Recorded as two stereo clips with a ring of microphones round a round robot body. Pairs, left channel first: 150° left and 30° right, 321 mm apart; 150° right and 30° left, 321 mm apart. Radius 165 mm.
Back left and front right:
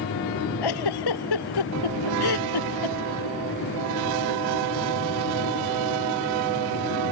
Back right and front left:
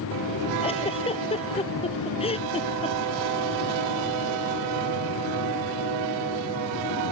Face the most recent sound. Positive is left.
turn(degrees=135)